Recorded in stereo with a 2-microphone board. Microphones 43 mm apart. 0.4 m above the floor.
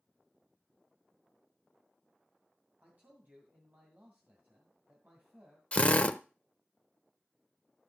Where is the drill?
30° left (ahead or behind), 0.7 m.